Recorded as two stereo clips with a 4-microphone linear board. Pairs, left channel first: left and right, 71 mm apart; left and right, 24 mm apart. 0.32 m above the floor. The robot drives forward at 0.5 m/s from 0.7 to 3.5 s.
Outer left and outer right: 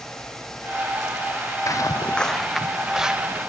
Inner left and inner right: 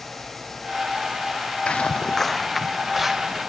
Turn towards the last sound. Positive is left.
turn(degrees=-10)  # may be behind; listen again after turning